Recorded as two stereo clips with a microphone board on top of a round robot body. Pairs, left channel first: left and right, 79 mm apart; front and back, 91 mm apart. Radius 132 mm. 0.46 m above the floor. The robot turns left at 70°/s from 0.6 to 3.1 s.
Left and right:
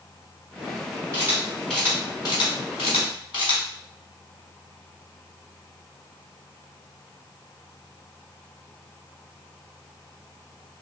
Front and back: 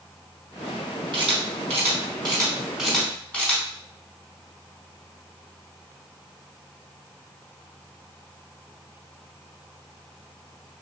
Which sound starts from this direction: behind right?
A camera shutter, at 1.1 s.